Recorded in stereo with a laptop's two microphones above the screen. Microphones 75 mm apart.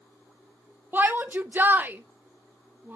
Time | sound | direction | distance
0.9 | a shout | 30° right (ahead or behind) | 0.7 m